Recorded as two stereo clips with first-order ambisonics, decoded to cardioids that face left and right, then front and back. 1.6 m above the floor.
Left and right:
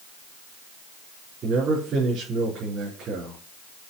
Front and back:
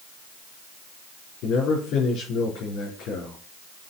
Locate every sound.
1.4 s a man speaking: 35° right, 4 m